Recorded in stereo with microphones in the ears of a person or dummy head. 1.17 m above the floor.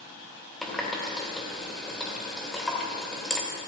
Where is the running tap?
Centre (ahead or behind), 2.5 m.